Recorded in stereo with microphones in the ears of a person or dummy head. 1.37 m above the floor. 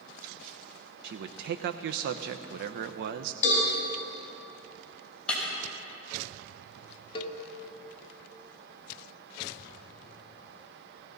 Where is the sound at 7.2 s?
35° left (ahead or behind), 1.4 m.